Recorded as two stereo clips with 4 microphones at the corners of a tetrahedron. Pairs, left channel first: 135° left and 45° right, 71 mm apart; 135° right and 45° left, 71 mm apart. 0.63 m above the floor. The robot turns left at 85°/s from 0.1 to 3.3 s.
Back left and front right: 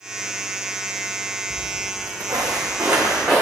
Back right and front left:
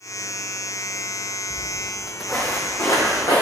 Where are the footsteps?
15° right, 0.8 m; by 3.4 s 125° right, 2.5 m.